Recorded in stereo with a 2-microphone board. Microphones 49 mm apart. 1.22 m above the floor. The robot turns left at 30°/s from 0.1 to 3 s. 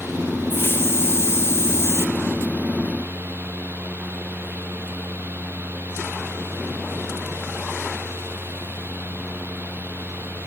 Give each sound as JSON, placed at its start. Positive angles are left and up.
{"t": 0.5, "sound": "a hiss", "azimuth_deg": 120, "distance_m": 0.6}